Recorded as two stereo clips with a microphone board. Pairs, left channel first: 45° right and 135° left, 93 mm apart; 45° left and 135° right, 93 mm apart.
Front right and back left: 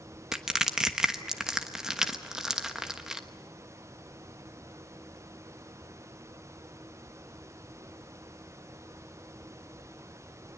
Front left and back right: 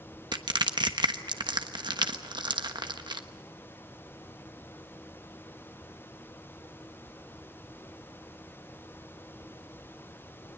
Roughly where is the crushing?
Behind right.